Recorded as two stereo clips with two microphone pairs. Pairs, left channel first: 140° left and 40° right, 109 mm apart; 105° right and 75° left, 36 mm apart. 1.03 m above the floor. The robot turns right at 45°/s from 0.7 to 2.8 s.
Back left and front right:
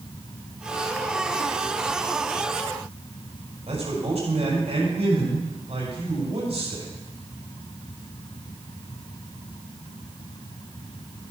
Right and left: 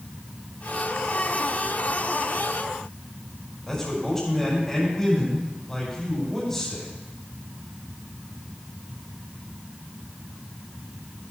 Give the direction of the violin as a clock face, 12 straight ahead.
I don't hear a violin.